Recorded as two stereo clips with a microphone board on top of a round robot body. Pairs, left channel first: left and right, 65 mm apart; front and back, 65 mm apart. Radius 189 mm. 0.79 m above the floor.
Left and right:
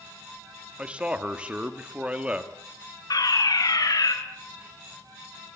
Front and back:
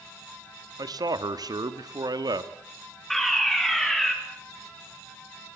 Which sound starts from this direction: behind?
A man speaking, at 0.8 s.